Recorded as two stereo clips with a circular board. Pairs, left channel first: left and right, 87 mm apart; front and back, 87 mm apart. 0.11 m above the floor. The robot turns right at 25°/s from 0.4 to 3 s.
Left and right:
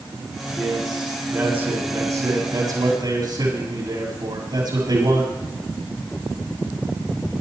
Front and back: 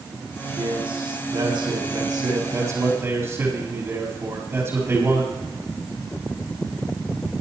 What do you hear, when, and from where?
0.6 s a man speaking: straight behind, 7 m; by 5.4 s 120° right, 7 m